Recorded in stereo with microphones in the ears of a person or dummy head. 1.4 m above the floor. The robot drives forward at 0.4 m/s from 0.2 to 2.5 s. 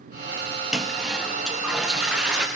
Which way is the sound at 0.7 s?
Centre (ahead or behind).